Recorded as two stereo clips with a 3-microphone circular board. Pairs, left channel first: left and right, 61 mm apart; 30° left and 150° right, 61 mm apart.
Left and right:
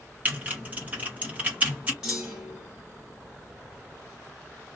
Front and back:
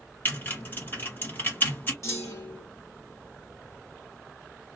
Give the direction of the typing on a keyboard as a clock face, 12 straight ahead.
1 o'clock.